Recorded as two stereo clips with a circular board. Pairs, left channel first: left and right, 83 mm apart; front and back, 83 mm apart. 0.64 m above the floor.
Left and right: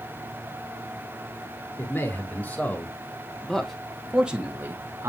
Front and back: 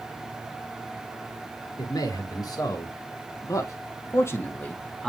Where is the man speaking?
30° left, 2.5 m; by 5.1 s 75° right, 1.3 m.